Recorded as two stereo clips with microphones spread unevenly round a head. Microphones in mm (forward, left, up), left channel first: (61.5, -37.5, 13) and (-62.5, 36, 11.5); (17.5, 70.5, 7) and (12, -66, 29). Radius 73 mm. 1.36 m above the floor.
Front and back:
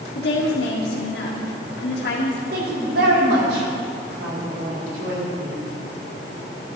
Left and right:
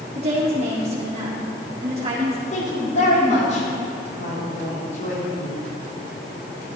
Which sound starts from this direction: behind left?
A woman speaking, at 2.5 s.